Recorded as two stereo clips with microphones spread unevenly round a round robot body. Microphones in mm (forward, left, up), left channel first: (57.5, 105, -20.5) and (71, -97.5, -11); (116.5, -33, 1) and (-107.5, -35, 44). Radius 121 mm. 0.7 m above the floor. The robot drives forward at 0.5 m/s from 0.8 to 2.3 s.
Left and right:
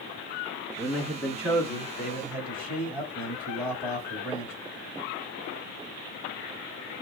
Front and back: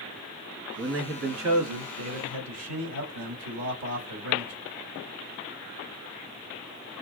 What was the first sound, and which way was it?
A man speaking, 175° left.